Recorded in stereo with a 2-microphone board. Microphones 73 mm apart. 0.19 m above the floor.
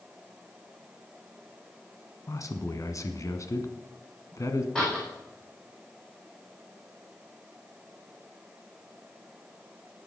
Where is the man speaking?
50° left (ahead or behind), 1.7 m.